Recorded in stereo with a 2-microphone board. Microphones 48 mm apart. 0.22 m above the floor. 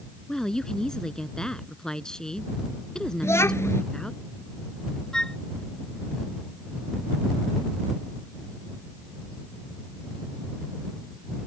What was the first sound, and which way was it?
A woman speaking, 15° left (ahead or behind).